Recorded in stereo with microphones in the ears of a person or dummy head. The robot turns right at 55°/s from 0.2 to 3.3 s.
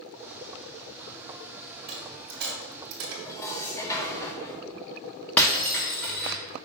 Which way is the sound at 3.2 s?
20° left (ahead or behind).